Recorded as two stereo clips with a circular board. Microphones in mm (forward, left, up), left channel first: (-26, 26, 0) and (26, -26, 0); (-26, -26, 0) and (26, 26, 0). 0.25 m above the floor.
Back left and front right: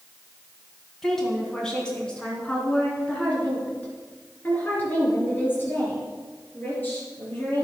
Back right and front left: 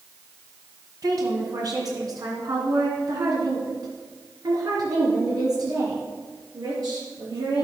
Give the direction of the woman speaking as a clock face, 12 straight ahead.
10 o'clock.